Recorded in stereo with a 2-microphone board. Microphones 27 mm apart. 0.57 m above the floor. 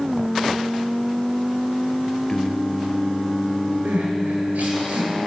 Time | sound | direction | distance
2.3 | singing | 30° left (ahead or behind) | 1.6 m
3.9 | crying | 85° right | 9 m